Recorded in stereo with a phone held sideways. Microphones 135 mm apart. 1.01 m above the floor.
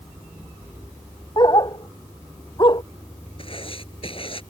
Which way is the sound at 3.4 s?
45° left (ahead or behind).